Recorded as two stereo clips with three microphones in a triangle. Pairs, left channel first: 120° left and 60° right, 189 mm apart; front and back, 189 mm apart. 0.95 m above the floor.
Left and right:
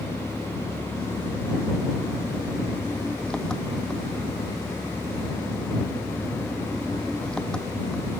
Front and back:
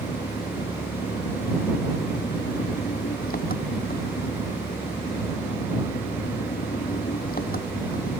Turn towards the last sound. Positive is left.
turn(degrees=35)